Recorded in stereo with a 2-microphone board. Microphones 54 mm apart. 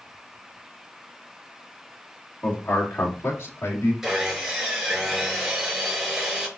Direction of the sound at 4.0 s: 10° right (ahead or behind).